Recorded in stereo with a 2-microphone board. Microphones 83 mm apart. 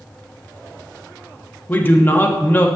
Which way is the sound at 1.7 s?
25° left (ahead or behind).